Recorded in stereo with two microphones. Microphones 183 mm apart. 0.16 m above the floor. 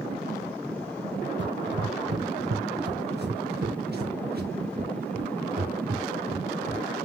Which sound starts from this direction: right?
Running footsteps, at 1.4 s.